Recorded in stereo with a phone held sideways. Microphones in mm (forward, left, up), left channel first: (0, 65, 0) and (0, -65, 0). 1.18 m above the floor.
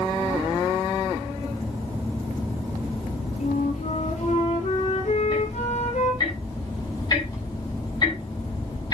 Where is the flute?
65° left (ahead or behind), 2.5 m.